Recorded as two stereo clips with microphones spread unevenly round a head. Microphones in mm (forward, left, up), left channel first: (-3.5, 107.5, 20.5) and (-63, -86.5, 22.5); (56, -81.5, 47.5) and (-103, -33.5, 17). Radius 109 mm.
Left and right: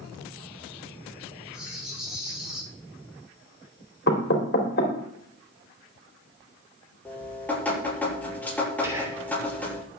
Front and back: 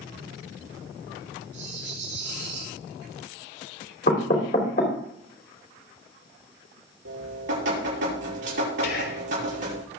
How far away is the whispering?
About 3 m.